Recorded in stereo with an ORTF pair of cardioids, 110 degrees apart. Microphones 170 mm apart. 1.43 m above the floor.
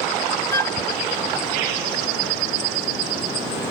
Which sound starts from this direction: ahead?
A flute, at 0.5 s.